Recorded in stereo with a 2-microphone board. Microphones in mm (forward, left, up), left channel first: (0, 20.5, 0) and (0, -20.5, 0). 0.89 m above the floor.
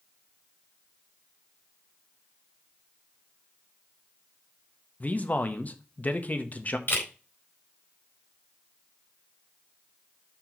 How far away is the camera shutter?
About 4 m.